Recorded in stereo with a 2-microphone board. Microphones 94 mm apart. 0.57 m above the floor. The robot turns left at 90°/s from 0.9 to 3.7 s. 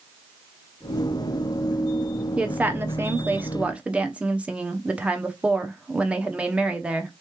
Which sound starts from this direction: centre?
A woman speaking, at 2.4 s.